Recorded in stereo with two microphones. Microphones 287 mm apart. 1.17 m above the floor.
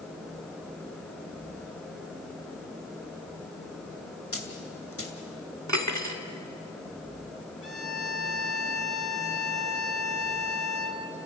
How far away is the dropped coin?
About 2.5 m.